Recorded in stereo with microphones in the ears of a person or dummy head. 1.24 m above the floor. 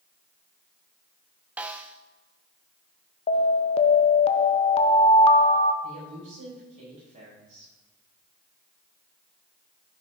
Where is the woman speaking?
35° right (ahead or behind), 4.5 m.